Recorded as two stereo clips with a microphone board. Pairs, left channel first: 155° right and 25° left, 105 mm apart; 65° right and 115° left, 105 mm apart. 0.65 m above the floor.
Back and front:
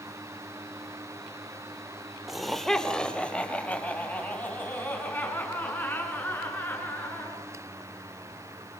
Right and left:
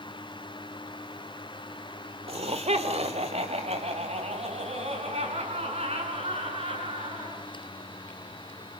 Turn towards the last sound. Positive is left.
turn(degrees=130)